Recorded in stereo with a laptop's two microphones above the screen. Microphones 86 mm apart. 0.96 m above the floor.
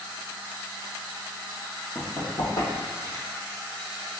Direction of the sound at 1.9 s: 50° left (ahead or behind).